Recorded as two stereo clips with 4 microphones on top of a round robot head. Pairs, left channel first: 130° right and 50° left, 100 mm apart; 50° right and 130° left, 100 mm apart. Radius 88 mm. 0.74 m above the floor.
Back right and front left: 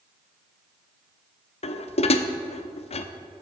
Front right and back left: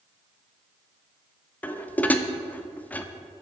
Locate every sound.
1.6 s dishes clattering: 125° right, 0.9 m